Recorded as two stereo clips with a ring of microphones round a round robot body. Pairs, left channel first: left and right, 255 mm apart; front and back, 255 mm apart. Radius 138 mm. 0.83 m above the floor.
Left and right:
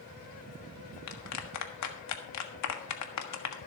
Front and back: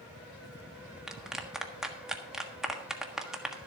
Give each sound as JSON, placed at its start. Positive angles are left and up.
{"t": 1.1, "sound": "a clap", "azimuth_deg": 90, "distance_m": 1.4}